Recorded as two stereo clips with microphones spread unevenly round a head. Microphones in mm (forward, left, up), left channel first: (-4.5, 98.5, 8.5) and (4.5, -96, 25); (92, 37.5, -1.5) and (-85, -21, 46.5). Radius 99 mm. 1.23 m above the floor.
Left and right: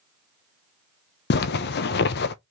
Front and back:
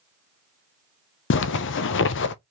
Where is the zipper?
50° left, 0.6 m.